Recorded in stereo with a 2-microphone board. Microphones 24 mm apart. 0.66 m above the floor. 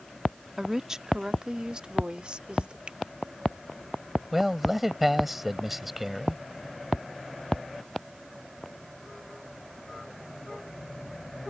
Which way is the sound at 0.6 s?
20° right (ahead or behind).